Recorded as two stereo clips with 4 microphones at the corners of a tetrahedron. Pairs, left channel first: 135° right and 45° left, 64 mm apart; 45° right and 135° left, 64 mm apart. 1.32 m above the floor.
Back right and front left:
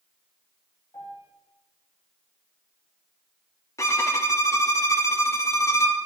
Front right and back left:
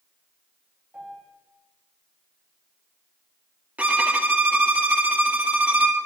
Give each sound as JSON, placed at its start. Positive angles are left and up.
{"t": 0.9, "sound": "a piano", "azimuth_deg": -160, "distance_m": 2.5}
{"t": 3.8, "sound": "a violin", "azimuth_deg": -165, "distance_m": 0.8}